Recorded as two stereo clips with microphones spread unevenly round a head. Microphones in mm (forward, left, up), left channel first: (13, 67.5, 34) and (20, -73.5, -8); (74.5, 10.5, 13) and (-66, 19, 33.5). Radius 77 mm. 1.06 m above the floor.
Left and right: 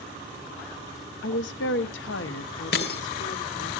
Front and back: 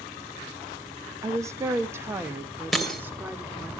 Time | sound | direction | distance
1.2 | a woman speaking | 105° left | 0.8 m
2.7 | breaking glass | 90° left | 2.5 m